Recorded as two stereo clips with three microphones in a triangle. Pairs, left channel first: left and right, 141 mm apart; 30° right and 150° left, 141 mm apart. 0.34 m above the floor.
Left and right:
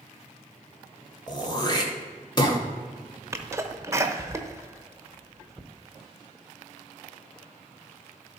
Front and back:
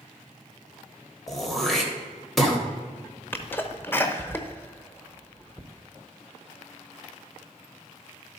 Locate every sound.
1.3 s throat clearing: 60° left, 1.3 m
3.3 s a sneeze: 75° right, 0.8 m